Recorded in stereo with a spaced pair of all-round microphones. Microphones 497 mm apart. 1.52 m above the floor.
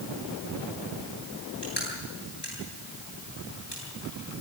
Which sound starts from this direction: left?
Crushing, at 1.6 s.